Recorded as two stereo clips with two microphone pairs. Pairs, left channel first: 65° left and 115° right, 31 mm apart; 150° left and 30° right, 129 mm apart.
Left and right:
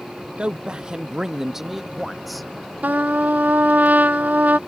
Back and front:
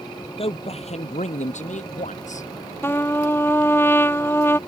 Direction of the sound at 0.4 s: 170° right.